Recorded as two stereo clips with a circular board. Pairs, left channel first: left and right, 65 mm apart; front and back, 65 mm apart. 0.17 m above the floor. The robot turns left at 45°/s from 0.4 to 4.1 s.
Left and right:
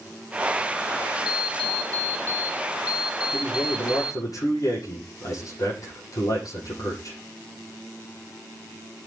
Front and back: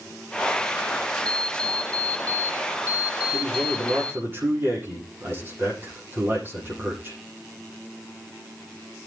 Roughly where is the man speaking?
Behind.